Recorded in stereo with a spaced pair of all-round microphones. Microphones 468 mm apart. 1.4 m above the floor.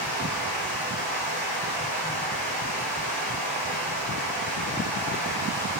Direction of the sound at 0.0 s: 15° right (ahead or behind).